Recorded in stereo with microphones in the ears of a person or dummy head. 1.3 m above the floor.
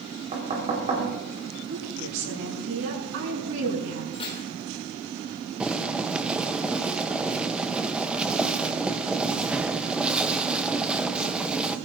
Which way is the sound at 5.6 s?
10° right (ahead or behind).